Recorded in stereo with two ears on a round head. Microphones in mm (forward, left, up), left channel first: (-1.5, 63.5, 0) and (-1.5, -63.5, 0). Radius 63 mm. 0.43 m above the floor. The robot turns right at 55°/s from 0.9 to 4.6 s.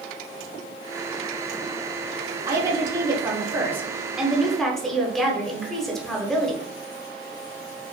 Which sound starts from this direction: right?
A woman speaking, at 2.5 s.